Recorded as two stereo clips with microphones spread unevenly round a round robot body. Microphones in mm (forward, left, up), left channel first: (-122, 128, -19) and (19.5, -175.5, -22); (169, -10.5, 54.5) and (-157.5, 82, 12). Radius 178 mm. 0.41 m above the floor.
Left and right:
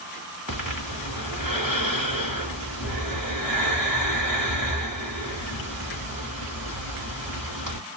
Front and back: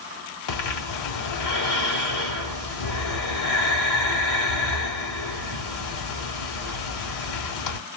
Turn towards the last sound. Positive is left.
turn(degrees=20)